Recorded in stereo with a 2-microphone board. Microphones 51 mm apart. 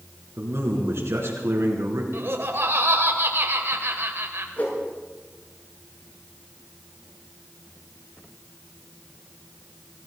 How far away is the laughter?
About 2 m.